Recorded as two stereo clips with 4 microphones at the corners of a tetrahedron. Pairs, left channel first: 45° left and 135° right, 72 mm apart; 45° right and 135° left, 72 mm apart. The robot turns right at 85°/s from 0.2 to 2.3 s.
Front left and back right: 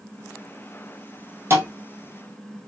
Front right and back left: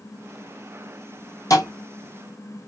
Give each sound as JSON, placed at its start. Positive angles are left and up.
{"t": 1.5, "sound": "a thud", "azimuth_deg": -80, "distance_m": 1.8}